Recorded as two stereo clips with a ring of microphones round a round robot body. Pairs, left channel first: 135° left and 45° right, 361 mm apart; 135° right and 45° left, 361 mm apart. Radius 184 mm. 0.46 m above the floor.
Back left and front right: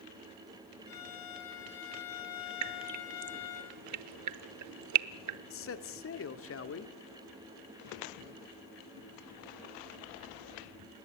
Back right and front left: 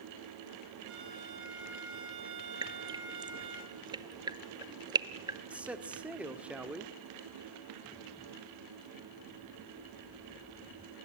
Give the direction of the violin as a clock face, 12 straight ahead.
9 o'clock.